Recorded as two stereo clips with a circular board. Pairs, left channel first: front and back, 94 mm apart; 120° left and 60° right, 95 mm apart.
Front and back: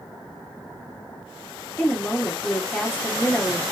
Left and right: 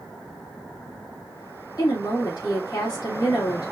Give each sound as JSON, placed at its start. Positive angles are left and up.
{"t": 1.8, "sound": "a woman speaking", "azimuth_deg": 75, "distance_m": 2.0}